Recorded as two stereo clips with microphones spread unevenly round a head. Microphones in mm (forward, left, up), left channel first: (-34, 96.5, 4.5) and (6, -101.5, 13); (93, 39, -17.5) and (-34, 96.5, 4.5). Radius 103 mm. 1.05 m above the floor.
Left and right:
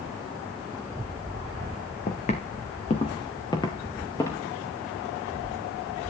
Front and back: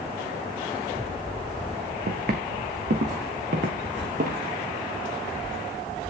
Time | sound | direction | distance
2.1 | footsteps | 155° left | 3 m